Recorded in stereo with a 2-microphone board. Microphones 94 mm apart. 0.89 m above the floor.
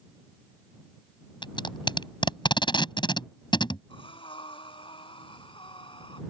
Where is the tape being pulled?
55° left (ahead or behind).